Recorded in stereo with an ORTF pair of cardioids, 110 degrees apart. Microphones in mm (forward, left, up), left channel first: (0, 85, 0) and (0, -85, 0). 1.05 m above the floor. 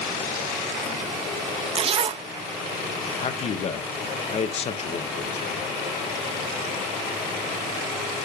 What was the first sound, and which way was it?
A zipper, 35° right.